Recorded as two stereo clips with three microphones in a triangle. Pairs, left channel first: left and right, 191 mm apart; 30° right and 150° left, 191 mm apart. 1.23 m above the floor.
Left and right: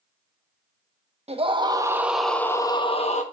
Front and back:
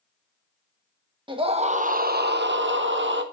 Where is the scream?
145° right, 1.4 m; by 3.2 s 140° left, 1.3 m.